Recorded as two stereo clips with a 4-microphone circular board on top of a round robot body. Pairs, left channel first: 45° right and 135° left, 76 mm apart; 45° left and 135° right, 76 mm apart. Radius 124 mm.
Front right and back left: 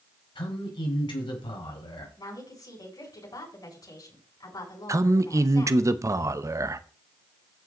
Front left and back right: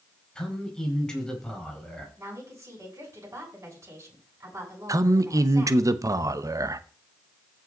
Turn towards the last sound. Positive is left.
turn(degrees=180)